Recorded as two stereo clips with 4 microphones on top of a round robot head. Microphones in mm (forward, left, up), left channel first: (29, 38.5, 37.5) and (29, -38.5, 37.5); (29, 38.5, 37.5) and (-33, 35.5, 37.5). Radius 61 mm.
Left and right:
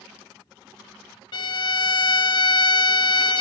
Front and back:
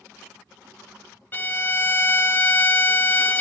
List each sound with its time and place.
1.3 s a violin: 60° left, 0.8 m